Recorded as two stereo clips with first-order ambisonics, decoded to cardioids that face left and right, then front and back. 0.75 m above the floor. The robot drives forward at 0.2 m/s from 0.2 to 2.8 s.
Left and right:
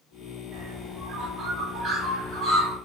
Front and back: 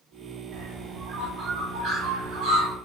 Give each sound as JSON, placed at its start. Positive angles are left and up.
{"t": 0.5, "sound": "a bird", "azimuth_deg": -135, "distance_m": 0.9}